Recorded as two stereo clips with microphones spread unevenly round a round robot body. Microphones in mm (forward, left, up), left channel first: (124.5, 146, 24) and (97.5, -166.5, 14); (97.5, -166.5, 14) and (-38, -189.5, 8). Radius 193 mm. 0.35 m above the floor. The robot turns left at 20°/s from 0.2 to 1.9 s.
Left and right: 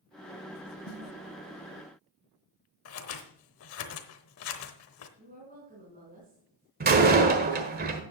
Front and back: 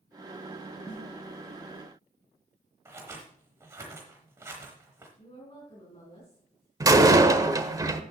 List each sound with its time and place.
0.8 s a snare drum: 95° left, 1.6 m; by 1.0 s 90° left, 1.6 m
2.9 s scissors: 120° left, 0.9 m
5.2 s a woman speaking: 35° right, 3.5 m
6.8 s a door slam: 130° right, 1.1 m